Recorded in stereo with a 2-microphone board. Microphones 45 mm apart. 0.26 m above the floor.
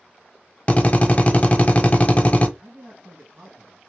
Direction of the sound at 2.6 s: 35° right (ahead or behind).